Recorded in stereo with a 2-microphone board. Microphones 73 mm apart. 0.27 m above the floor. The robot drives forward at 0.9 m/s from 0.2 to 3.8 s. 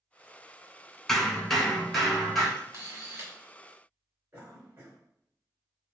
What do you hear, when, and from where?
1.1 s hammering: 5° left (ahead or behind), 0.8 m; by 2.5 s centre (ahead or behind), 2.0 m
2.6 s a camera shutter: 40° right (ahead or behind), 1.4 m; by 3.3 s 30° right (ahead or behind), 1.8 m
4.3 s a cough: 30° right (ahead or behind), 1.1 m